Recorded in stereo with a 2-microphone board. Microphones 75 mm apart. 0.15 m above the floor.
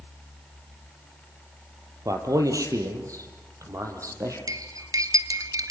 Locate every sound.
2.0 s a man speaking: 50° right (ahead or behind), 4 m; by 4.4 s 45° right (ahead or behind), 5.5 m
4.5 s cutlery clinking: 55° right (ahead or behind), 1.6 m